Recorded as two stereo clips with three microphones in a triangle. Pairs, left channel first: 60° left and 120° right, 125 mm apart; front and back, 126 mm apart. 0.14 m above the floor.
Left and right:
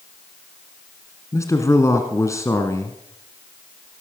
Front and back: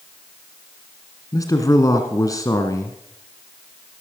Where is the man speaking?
25° left, 1.5 m.